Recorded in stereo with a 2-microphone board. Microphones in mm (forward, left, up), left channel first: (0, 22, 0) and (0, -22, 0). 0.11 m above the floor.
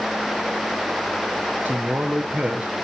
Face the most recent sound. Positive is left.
turn(degrees=-35)  # may be behind; listen again after turning